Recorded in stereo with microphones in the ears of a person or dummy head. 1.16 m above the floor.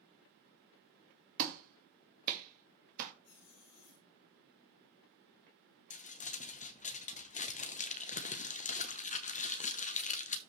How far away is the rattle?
No rattle in this recording.